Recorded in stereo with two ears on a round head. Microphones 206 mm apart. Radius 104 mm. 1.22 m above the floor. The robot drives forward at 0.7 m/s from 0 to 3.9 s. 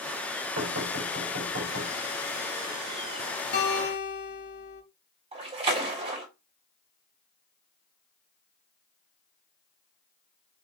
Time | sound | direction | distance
0.6 | knocking | 65° right (ahead or behind) | 4.5 m
3.5 | a guitar | 50° left (ahead or behind) | 4 m
5.3 | a splash | 30° right (ahead or behind) | 3.5 m